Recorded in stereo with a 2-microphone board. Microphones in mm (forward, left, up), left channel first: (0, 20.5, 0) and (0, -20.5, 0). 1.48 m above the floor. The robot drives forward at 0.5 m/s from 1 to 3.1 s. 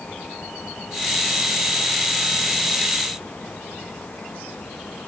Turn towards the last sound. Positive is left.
No sound to turn to.